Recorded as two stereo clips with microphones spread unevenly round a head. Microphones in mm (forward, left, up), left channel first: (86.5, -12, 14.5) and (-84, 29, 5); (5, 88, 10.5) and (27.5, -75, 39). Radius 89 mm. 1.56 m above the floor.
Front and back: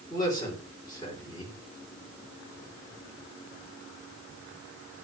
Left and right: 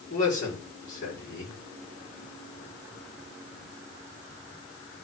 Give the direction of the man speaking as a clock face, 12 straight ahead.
10 o'clock.